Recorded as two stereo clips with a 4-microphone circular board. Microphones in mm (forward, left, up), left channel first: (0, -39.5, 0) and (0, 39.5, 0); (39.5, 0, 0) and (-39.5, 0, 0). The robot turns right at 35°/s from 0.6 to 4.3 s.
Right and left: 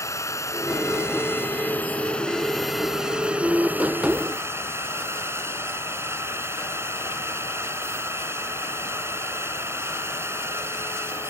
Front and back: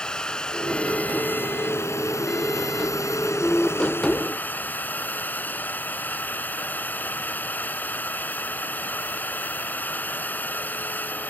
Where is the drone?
75° right; by 11.3 s 55° left.